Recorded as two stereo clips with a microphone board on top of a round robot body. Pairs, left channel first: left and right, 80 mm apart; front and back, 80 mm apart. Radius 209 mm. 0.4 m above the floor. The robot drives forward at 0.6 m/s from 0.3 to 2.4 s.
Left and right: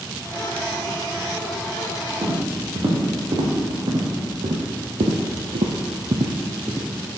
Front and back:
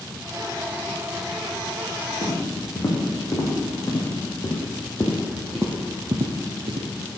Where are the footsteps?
45° right, 3.5 m; by 6.9 s 170° right, 1.1 m.